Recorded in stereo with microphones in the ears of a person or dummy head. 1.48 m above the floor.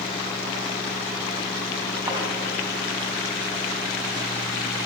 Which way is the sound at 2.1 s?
20° right (ahead or behind).